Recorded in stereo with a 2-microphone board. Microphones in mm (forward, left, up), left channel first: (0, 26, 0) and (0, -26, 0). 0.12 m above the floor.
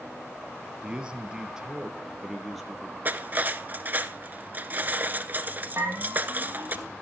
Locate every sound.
0.8 s a man speaking: 20° right (ahead or behind), 3 m; by 3.0 s centre (ahead or behind), 3.5 m
3.0 s cutlery clinking: 40° right (ahead or behind), 1.1 m
5.8 s a bell: 55° right (ahead or behind), 10 m